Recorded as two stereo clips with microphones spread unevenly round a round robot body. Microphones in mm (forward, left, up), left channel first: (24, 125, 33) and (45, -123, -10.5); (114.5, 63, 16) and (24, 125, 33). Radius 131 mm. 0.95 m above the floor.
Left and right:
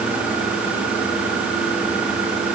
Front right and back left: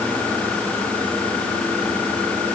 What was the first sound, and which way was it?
Only background noise.